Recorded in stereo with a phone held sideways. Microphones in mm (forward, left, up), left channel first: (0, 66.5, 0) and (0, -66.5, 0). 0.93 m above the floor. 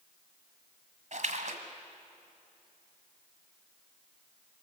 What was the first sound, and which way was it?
A splash, 65° right (ahead or behind).